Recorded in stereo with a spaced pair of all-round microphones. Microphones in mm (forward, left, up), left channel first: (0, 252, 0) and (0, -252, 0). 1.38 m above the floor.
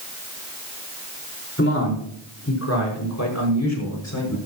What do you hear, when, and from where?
1.6 s a man speaking: 25° left (ahead or behind), 4.5 m; by 4.4 s 35° left (ahead or behind), 6 m